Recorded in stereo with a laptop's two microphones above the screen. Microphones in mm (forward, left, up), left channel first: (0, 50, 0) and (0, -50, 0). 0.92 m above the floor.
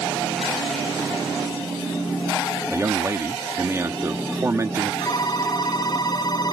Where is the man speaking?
25° right (ahead or behind).